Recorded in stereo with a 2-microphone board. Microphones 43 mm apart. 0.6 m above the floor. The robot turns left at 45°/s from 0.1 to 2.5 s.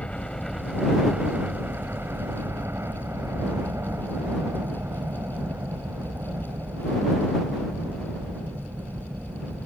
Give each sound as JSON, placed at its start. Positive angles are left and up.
{"t": 0.0, "sound": "a helicopter", "azimuth_deg": 25}